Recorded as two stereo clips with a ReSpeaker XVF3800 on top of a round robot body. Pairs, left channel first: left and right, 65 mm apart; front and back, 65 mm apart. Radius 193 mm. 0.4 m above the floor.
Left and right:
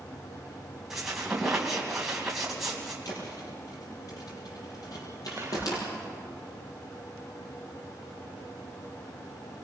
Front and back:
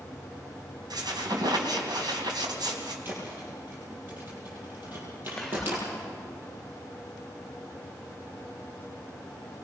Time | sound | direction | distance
0.9 | a squeak | 175° right | 2.5 m
3.0 | a thud | 120° left | 6 m
5.4 | whispering | 75° right | 1.0 m